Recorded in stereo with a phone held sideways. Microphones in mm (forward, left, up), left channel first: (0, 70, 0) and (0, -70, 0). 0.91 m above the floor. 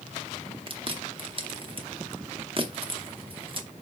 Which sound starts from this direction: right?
Chewing, at 0.7 s.